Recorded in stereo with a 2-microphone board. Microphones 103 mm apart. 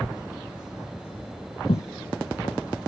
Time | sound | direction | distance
1.7 | footsteps | 70° left (ahead or behind) | 0.5 m